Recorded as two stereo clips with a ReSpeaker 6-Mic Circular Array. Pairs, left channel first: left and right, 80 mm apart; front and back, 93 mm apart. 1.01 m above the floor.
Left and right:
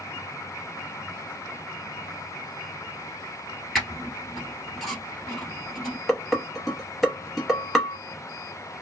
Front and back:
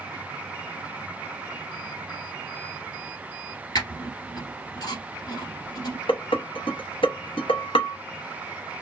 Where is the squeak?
5° left, 1.3 m.